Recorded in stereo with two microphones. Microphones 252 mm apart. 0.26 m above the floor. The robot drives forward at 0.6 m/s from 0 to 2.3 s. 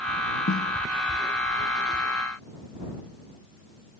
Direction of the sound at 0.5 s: 60° left (ahead or behind).